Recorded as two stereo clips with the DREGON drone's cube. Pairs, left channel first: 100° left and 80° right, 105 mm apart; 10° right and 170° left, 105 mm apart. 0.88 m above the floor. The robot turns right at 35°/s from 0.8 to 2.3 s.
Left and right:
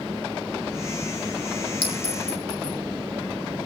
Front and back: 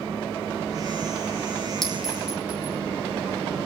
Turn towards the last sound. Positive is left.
turn(degrees=90)